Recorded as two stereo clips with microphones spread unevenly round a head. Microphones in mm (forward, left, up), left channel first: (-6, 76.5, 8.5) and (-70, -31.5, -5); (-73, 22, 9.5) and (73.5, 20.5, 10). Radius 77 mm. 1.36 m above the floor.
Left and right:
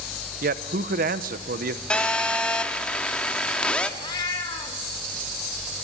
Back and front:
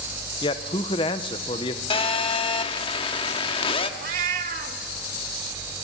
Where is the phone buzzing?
135° left, 1.1 m.